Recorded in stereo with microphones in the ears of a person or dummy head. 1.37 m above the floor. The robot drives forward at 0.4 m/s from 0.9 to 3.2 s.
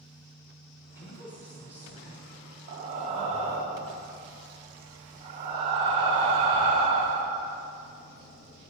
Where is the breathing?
30° right (ahead or behind), 0.8 m; by 7.5 s 25° right (ahead or behind), 0.9 m.